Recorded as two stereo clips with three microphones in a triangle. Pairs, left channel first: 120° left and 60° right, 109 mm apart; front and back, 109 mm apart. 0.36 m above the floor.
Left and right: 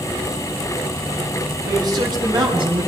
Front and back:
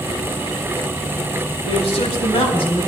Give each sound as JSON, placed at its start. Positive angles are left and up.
{"t": 1.6, "sound": "a man speaking", "azimuth_deg": -10, "distance_m": 4.5}